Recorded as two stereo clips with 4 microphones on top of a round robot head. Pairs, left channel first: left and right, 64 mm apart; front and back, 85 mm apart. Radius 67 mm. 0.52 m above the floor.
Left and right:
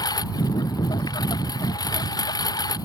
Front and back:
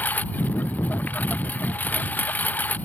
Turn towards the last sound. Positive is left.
turn(degrees=70)